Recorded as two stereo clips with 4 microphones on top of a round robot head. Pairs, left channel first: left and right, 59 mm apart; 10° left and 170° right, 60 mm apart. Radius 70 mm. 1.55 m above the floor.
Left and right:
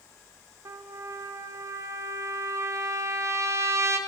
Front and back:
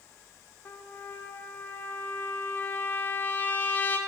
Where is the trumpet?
50° right, 0.7 m.